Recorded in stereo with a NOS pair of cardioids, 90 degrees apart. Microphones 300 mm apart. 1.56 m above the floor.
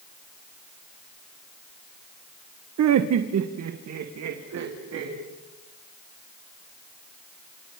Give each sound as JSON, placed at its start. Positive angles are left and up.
{"t": 2.8, "sound": "laughter", "azimuth_deg": -60, "distance_m": 1.2}